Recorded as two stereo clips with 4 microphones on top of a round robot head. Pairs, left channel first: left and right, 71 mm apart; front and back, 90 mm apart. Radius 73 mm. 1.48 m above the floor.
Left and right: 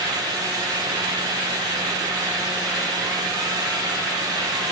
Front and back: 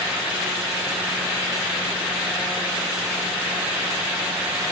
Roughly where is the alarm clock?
No alarm clock in this recording.